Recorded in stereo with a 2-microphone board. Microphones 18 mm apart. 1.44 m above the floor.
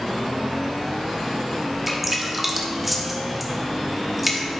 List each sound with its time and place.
1.9 s dripping: 10° right (ahead or behind), 1.1 m